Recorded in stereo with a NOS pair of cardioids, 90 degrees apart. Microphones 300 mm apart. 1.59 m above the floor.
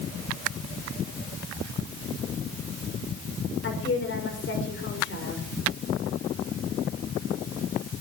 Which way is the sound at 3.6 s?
40° left.